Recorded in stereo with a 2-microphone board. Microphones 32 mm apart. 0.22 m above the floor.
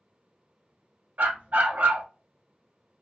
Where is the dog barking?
60° right (ahead or behind), 0.9 m.